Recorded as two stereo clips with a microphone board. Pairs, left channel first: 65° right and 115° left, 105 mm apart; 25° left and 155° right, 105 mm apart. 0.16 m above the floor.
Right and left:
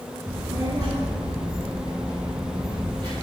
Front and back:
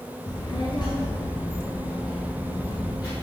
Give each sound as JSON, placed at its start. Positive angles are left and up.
{"t": 0.3, "sound": "a child speaking", "azimuth_deg": 55, "distance_m": 1.6}